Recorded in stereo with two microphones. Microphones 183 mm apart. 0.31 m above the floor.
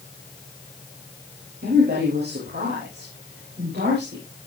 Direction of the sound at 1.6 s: 60° right (ahead or behind).